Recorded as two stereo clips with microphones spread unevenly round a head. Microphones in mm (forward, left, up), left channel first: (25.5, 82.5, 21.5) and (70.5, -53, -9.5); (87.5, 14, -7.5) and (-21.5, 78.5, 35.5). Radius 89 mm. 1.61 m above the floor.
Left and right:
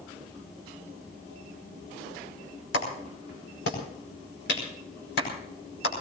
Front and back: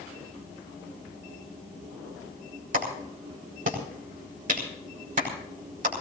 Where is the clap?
135° left, 5 m.